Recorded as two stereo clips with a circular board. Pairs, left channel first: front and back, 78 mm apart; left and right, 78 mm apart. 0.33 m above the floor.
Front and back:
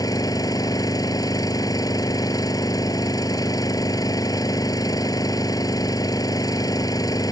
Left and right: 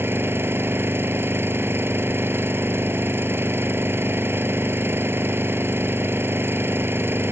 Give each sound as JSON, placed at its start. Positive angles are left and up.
{"t": 0.0, "sound": "an engine running", "azimuth_deg": -35}